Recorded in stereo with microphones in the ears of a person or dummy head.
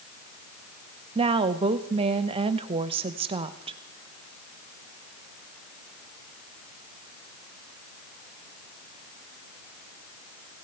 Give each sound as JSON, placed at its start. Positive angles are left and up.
{"t": 1.1, "sound": "a woman speaking", "side_deg": -20, "distance_m": 0.7}